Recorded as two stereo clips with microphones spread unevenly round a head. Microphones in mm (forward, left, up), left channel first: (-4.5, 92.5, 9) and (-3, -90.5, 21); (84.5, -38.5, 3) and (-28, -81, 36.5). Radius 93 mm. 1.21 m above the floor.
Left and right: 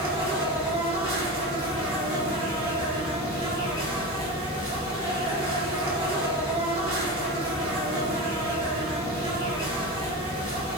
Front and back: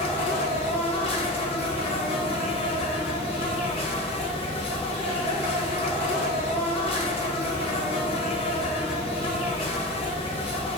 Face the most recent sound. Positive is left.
turn(degrees=-30)